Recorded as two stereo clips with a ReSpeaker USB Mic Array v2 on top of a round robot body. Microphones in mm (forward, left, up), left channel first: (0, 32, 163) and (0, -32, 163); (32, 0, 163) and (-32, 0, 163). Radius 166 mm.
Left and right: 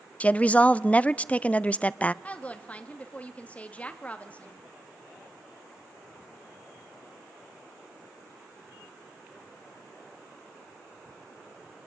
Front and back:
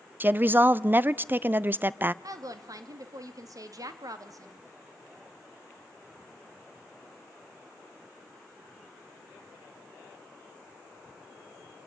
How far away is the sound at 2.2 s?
About 1.7 m.